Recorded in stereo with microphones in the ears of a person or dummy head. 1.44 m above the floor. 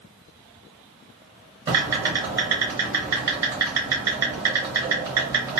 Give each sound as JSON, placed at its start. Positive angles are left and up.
{"t": 1.7, "sound": "typing on a keyboard", "side_deg": -20, "distance_m": 1.0}